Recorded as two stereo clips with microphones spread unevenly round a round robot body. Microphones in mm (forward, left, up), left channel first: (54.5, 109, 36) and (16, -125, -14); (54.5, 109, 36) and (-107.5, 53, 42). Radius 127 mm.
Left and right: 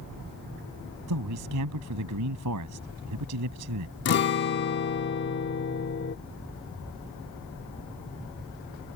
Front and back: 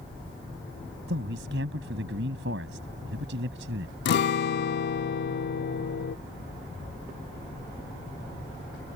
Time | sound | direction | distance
1.1 | a man speaking | 120° right | ?
4.0 | a guitar | 35° left | ?